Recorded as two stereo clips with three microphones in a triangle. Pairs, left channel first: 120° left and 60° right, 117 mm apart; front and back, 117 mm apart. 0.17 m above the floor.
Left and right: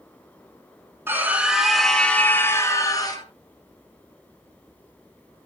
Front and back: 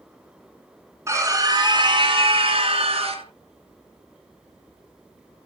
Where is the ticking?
I don't hear ticking.